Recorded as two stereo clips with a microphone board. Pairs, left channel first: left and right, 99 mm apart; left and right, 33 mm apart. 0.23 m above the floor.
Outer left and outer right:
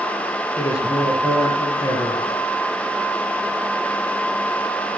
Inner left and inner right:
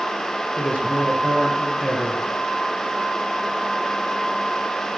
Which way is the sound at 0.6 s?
35° left (ahead or behind).